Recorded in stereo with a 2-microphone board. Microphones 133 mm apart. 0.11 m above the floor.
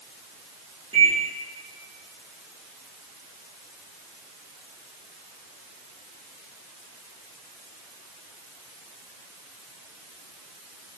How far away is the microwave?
About 3 m.